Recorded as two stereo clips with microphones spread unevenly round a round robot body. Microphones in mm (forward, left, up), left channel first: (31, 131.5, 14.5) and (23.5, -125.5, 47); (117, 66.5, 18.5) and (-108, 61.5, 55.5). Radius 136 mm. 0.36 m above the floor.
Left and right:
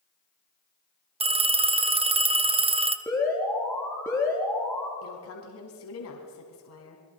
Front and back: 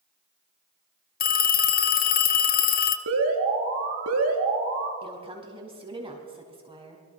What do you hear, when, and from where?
1.2 s a phone ringing: 20° right, 1.2 m
3.1 s an alarm: 170° left, 4 m
5.0 s a woman speaking: 110° left, 3.5 m